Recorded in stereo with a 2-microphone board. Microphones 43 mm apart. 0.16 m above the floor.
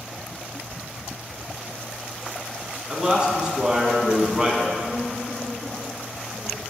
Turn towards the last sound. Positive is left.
turn(degrees=25)  # may be behind; listen again after turning